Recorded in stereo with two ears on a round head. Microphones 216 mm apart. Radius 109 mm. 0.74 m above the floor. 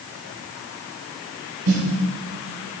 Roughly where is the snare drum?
Right.